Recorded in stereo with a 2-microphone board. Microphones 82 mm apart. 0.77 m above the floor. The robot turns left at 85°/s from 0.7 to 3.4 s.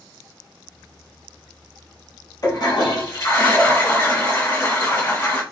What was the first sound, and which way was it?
A toilet flushing, 125° left.